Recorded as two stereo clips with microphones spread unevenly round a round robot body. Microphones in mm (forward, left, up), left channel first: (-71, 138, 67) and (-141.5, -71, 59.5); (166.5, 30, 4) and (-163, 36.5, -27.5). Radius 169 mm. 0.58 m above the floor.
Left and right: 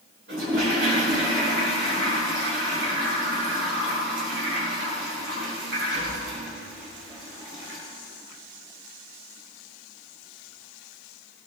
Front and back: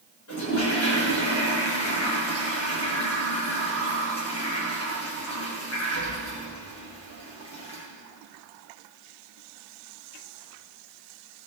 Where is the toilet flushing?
50° right, 7 m.